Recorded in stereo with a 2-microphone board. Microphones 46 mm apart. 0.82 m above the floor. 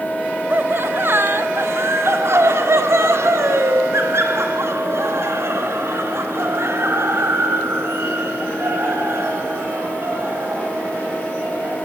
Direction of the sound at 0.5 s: 45° right (ahead or behind).